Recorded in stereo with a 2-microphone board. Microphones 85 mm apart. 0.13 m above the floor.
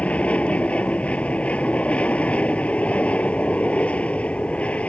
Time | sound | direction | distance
0.0 | an aircraft | 15° left (ahead or behind) | ?